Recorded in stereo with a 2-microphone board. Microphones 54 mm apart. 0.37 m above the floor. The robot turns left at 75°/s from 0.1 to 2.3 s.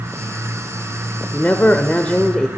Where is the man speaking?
25° left (ahead or behind), 1.0 m; by 2.5 s 15° left (ahead or behind), 1.0 m.